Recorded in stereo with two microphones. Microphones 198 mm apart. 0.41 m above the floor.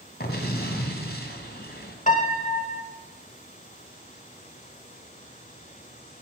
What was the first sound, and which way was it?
An explosion, 55° left (ahead or behind).